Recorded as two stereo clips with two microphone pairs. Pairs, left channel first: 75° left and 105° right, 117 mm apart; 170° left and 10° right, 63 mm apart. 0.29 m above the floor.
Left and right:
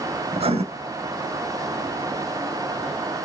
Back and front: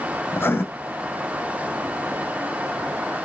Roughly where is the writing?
Behind right.